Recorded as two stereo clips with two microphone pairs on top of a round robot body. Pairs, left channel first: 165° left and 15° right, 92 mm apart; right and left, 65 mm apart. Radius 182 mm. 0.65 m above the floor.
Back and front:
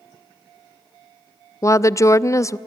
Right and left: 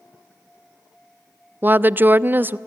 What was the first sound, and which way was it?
A woman speaking, 125° left.